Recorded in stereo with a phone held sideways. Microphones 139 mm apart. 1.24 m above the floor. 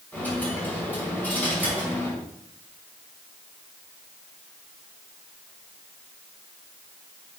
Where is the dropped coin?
10° left (ahead or behind), 4.5 m.